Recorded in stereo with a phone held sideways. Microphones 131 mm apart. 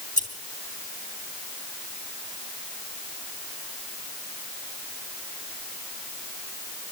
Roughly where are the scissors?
Left.